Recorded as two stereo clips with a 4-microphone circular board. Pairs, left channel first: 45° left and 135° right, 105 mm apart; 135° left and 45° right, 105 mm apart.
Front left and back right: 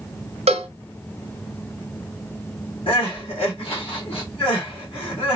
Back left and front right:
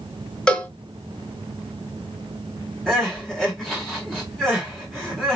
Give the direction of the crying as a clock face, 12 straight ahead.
10 o'clock.